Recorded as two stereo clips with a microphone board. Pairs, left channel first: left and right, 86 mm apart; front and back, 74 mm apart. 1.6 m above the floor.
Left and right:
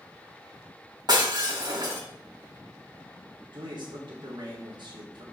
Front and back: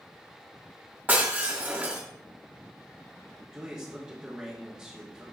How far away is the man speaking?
About 1.7 m.